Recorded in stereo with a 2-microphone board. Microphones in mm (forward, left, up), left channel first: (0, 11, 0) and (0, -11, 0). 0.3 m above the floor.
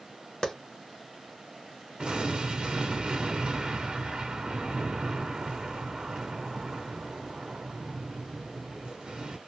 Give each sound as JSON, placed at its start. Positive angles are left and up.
{"t": 0.4, "sound": "a clap", "side_deg": 25, "distance_m": 0.8}
{"t": 2.0, "sound": "an explosion", "side_deg": -45, "distance_m": 1.3}